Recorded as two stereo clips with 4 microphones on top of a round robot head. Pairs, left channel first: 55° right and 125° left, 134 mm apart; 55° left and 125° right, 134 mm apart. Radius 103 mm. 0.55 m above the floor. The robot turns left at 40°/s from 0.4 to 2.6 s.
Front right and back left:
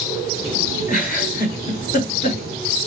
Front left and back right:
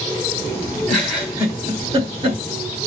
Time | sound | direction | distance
0.9 | a giggle | 30° right | 3 m